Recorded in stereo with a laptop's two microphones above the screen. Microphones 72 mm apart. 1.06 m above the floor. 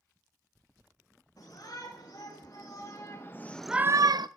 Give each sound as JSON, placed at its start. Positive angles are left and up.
{"t": 1.4, "sound": "a shout", "side_deg": 55, "distance_m": 4.0}